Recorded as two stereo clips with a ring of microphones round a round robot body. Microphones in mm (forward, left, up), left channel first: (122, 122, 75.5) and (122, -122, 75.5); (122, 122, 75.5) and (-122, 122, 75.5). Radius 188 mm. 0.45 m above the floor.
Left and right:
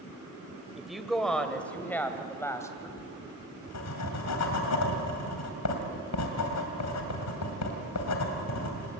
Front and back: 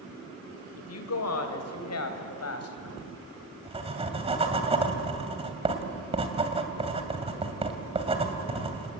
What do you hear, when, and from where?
0.8 s a woman speaking: straight ahead, 2.5 m; by 2.9 s 10° left, 3.5 m
3.0 s writing: 115° left, 2.5 m